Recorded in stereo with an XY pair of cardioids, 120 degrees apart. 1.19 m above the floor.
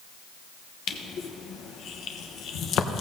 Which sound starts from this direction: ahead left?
Crushing, at 0.9 s.